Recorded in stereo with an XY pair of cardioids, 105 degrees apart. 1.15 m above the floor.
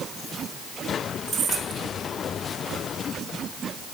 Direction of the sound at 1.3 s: 45° right.